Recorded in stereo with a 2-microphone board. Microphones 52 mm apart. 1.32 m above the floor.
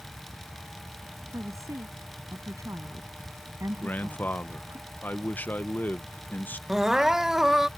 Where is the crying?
5° right (ahead or behind).